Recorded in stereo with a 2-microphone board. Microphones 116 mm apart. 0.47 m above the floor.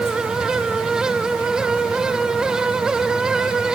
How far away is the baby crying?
No baby crying in this recording.